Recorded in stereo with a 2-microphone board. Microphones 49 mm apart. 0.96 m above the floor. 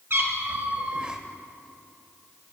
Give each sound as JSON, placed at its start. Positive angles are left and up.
{"t": 0.1, "sound": "a cat meowing", "side_deg": -55, "distance_m": 1.2}